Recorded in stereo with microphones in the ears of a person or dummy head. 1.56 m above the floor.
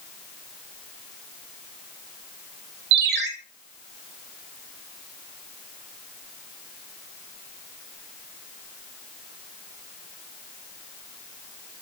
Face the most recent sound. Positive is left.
turn(degrees=-55)  # may be behind; listen again after turning